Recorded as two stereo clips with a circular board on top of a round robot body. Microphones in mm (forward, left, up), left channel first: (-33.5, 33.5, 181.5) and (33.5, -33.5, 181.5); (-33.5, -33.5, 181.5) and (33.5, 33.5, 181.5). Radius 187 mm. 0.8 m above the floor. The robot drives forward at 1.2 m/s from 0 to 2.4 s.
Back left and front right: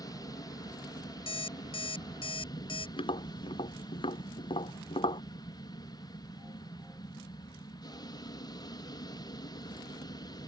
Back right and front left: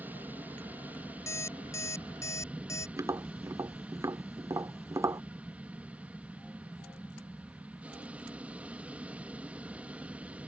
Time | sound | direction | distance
0.0 | an aircraft | 110° left | ?
1.3 | an alarm clock | 165° left | ?
3.0 | tapping | 105° left | ?